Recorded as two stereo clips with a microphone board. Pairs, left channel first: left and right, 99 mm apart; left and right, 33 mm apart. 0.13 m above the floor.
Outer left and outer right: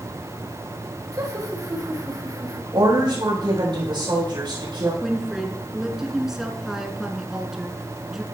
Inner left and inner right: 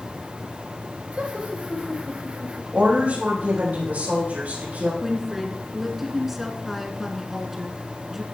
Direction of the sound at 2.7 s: 55° right (ahead or behind).